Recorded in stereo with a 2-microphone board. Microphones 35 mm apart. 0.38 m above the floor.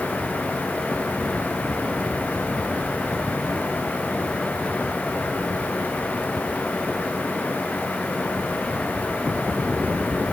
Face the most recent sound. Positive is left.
No sound to turn to.